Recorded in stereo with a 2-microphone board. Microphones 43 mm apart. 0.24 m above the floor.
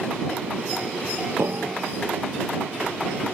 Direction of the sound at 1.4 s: 70° right (ahead or behind).